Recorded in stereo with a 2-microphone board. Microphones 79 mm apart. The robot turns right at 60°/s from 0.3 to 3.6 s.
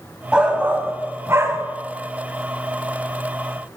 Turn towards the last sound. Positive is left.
turn(degrees=40)